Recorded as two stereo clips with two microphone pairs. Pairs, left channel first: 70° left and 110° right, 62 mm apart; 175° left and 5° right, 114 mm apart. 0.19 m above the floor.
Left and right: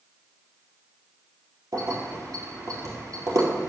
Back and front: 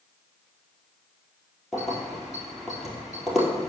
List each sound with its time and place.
1.7 s keys jangling: 90° right, 2.5 m